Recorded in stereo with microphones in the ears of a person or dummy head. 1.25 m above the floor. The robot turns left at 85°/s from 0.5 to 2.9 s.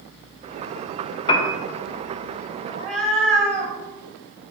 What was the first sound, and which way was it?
A piano, 20° left (ahead or behind).